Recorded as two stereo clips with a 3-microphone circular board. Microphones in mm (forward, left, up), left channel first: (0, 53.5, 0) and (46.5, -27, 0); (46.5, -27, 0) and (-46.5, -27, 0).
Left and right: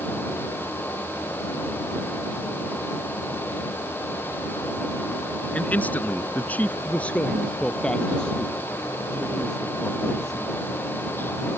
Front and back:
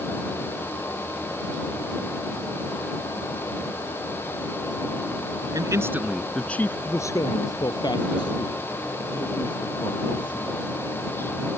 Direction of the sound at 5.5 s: 170° right.